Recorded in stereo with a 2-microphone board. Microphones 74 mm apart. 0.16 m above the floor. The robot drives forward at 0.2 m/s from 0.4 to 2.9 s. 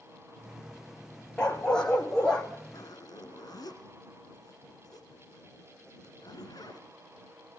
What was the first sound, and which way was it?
A dog barking, 10° left (ahead or behind).